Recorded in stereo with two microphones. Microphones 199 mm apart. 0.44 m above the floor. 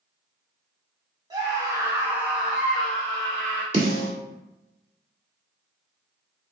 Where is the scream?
20° right (ahead or behind), 1.2 m; by 3.6 s 5° left (ahead or behind), 2 m.